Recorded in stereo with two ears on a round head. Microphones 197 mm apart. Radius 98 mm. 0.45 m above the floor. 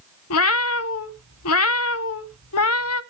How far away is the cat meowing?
About 0.7 m.